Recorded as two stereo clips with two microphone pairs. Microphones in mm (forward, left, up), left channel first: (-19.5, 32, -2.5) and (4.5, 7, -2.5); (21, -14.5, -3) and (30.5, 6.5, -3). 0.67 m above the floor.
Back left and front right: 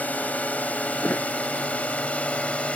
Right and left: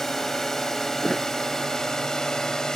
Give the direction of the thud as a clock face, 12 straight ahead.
7 o'clock.